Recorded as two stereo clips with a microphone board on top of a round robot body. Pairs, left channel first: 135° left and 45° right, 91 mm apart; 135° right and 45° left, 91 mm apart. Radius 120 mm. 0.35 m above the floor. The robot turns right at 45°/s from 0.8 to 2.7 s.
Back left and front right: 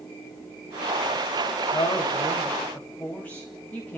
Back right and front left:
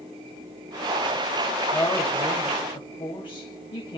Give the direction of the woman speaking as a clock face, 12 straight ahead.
7 o'clock.